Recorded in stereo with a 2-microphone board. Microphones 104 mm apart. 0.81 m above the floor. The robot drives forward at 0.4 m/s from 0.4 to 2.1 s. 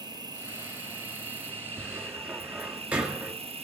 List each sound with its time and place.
0.0 s an insect: 45° right (ahead or behind), 1.1 m; by 3.6 s 70° right (ahead or behind), 0.8 m
1.8 s a cupboard door: 15° right (ahead or behind), 1.7 m